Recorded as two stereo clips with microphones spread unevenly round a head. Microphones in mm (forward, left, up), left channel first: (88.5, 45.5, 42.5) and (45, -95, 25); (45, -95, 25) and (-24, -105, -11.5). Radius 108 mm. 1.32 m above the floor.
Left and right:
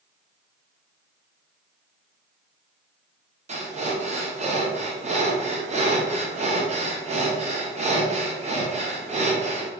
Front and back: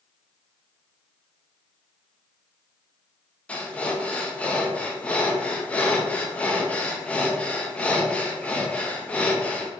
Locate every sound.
3.5 s breathing: 85° right, 0.8 m